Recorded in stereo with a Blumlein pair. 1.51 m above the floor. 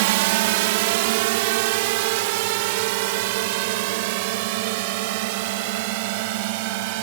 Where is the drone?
50° right; by 7.0 s 45° right.